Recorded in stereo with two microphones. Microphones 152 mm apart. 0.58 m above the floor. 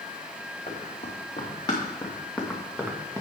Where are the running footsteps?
45° left (ahead or behind), 4 m; by 3.2 s 20° right (ahead or behind), 2.5 m.